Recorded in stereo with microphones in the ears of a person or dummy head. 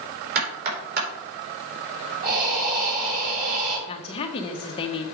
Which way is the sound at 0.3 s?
50° right (ahead or behind).